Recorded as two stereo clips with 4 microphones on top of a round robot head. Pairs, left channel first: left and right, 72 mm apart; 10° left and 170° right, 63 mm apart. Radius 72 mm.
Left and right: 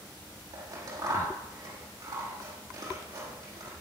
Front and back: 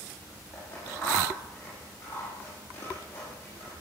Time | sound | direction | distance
0.5 | scissors | 60° right | 5.5 m